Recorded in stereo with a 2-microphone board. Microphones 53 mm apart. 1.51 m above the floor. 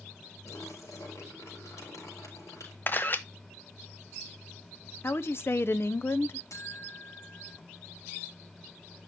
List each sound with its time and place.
0.5 s a splash: 85° left, 4.5 m
2.9 s a camera shutter: 40° left (ahead or behind), 0.7 m
5.0 s a woman speaking: 50° left (ahead or behind), 0.5 m
6.5 s a buzzer: 75° left (ahead or behind), 4.5 m